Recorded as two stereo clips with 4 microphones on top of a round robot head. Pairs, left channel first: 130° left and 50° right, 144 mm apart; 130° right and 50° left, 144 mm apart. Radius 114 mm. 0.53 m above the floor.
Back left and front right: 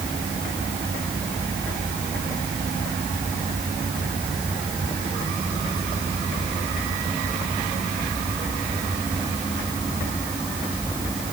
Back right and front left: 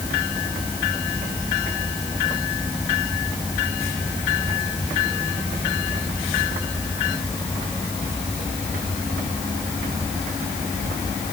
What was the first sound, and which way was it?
Only background noise.